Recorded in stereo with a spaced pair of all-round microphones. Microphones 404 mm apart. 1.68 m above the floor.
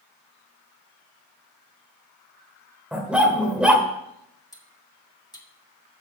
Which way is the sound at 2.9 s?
Centre (ahead or behind).